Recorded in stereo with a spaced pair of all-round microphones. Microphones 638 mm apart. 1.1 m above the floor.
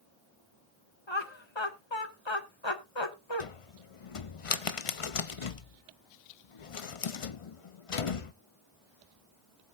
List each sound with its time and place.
1.1 s laughter: 45° left (ahead or behind), 1.5 m
3.4 s a cupboard door: 55° left (ahead or behind), 0.7 m